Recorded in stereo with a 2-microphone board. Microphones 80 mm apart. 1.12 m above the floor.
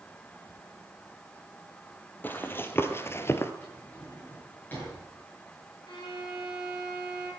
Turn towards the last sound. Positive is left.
turn(degrees=65)  # may be behind; listen again after turning